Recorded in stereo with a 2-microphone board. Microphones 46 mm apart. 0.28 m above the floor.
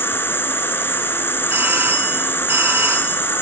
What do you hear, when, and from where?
0.0 s an insect: 55° left (ahead or behind), 1.1 m
1.5 s a doorbell: 40° right (ahead or behind), 6 m